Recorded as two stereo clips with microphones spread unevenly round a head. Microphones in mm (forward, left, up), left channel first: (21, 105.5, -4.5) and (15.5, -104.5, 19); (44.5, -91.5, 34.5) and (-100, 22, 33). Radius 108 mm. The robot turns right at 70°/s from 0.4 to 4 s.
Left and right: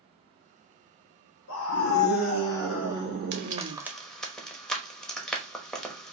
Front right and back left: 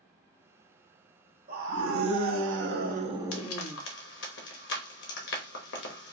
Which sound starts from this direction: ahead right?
Frying, at 3.3 s.